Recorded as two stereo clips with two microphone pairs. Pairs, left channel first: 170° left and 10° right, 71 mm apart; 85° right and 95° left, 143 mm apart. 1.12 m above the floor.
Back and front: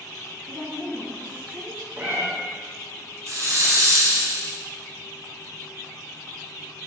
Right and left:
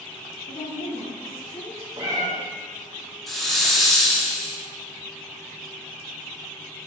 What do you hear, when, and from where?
0.5 s a woman speaking: 90° right, 1.9 m; by 1.9 s 55° right, 2 m
2.0 s a cat meowing: 45° left, 1.1 m
3.3 s a hiss: 10° left, 0.7 m